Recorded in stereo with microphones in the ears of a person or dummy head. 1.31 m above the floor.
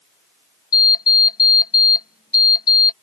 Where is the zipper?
I don't hear a zipper.